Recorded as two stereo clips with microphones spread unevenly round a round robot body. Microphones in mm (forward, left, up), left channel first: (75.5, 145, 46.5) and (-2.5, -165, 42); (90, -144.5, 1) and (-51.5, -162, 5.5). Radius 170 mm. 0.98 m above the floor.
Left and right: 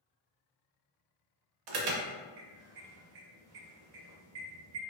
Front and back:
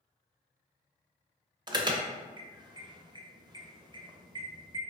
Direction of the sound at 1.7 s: 110° right.